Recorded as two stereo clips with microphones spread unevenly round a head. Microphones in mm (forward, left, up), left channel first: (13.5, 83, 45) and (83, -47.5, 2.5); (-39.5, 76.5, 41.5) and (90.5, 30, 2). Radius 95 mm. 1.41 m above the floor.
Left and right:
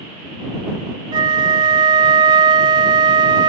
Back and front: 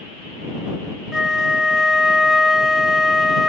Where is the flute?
135° right.